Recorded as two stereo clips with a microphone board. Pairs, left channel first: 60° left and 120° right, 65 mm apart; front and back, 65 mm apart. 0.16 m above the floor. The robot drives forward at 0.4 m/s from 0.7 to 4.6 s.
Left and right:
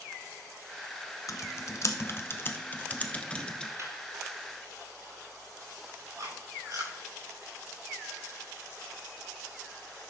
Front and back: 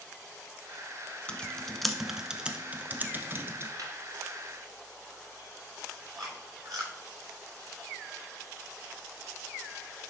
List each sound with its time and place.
1.3 s typing on a keyboard: 70° left, 0.9 m; by 3.7 s 140° left, 1.1 m
3.8 s laughter: 155° right, 3 m
6.2 s chewing: 155° right, 6.5 m